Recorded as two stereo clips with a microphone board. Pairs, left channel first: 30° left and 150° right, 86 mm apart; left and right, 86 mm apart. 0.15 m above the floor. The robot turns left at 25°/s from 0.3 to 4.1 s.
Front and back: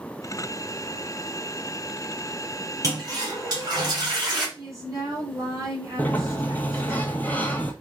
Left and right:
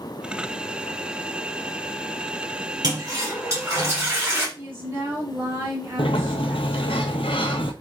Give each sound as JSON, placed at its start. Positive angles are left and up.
{"t": 2.8, "sound": "a toilet flushing", "azimuth_deg": -115, "distance_m": 2.5}
{"t": 4.6, "sound": "a woman speaking", "azimuth_deg": -135, "distance_m": 2.0}
{"t": 6.0, "sound": "a sliding door", "azimuth_deg": 100, "distance_m": 0.7}